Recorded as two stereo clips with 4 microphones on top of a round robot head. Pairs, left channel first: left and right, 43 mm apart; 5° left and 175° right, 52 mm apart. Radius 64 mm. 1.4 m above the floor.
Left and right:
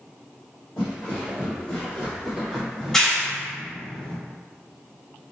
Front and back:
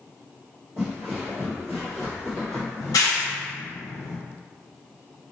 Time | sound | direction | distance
0.8 | footsteps | 110° left | 1.7 m
2.8 | a clap | 10° left | 0.7 m